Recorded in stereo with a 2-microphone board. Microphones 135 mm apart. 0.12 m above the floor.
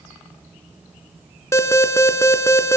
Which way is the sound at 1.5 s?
20° left (ahead or behind).